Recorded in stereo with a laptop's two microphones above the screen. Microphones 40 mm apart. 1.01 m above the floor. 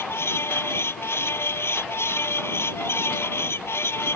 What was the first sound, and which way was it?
A fan, 85° left.